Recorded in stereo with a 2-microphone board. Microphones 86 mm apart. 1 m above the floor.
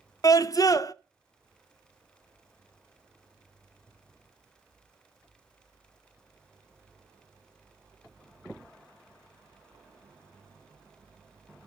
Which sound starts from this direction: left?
A scream, at 0.2 s.